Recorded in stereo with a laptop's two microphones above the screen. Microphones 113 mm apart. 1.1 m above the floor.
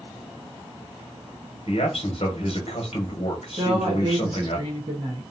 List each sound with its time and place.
1.7 s a man speaking: 60° left (ahead or behind), 1.0 m
3.6 s a woman speaking: 40° right (ahead or behind), 1.1 m